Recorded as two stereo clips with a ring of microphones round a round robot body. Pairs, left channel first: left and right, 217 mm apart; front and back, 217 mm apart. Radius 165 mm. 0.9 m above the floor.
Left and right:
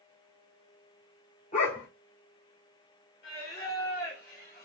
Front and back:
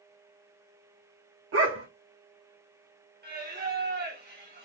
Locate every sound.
1.5 s a dog barking: 160° left, 0.7 m
3.2 s singing: 150° left, 1.6 m